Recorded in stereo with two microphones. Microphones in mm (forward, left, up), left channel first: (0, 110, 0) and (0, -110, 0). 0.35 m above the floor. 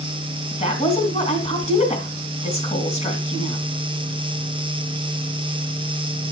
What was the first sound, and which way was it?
A woman speaking, 30° left (ahead or behind).